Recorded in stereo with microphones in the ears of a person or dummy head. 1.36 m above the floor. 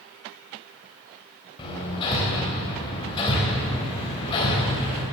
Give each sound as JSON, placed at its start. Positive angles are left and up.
{"t": 1.6, "sound": "hammering", "side_deg": 25, "distance_m": 3.5}